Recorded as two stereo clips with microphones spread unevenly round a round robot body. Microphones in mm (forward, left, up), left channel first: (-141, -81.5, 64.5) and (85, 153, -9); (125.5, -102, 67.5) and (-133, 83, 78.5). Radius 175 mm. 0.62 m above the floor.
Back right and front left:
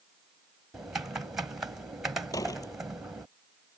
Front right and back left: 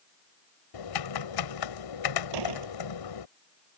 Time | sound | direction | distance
0.7 | typing on a keyboard | 40° right | ?
2.3 | a door slam | 145° left | ?